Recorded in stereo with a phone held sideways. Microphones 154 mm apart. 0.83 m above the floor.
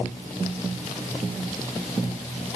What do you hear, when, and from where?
Only background noise.